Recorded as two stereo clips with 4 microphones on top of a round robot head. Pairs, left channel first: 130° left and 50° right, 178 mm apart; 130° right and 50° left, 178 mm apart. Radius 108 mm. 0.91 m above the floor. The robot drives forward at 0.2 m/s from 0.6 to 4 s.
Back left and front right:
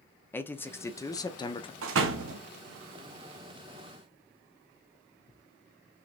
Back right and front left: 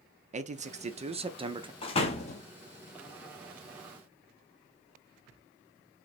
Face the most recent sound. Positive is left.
turn(degrees=-100)